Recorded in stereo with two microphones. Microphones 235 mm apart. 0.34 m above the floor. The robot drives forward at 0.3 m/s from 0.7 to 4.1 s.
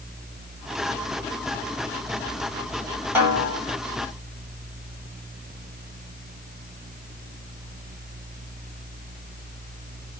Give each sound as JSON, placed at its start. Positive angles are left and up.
{"t": 3.1, "sound": "a snare drum", "side_deg": -5, "distance_m": 1.8}